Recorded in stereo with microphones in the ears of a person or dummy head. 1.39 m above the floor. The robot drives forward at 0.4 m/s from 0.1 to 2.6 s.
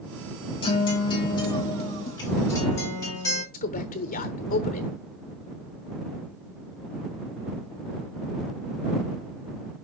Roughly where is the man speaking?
Left.